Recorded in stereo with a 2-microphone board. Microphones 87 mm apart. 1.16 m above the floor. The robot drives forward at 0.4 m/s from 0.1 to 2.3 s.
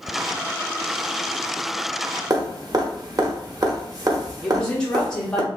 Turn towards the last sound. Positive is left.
turn(degrees=10)  # may be behind; listen again after turning